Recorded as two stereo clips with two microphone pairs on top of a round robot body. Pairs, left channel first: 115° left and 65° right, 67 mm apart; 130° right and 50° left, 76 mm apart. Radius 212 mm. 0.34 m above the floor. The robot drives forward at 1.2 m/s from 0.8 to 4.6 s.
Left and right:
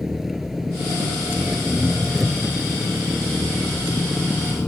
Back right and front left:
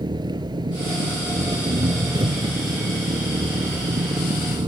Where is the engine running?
25° left; by 4.7 s 40° left.